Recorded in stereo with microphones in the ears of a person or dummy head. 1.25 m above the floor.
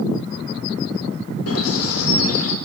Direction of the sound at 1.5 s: 85° left.